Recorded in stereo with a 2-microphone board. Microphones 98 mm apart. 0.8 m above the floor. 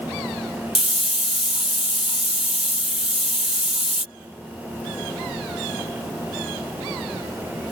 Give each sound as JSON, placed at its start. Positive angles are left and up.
{"t": 0.8, "sound": "a hiss", "side_deg": 75}